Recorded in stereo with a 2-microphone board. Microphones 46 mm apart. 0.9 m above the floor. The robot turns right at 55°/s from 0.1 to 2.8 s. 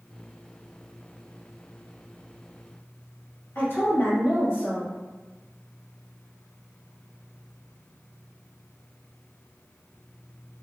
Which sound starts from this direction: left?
A woman speaking, at 3.5 s.